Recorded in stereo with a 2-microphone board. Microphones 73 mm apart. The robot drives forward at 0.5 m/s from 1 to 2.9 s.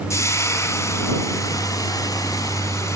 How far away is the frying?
About 0.9 m.